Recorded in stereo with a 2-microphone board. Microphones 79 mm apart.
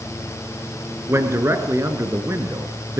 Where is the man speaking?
35° right (ahead or behind), 3.5 m.